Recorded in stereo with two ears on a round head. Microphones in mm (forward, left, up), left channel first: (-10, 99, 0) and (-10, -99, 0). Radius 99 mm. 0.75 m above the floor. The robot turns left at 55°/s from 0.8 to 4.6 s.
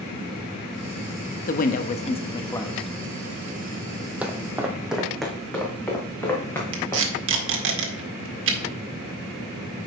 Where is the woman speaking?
80° left, 0.7 m; by 2.9 s 5° left, 0.7 m.